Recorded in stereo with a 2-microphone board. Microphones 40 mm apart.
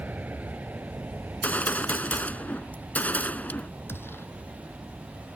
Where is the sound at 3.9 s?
75° left (ahead or behind).